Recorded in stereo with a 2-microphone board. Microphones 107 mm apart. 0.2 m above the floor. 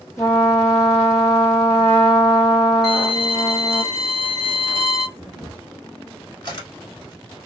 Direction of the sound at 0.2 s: 30° left (ahead or behind).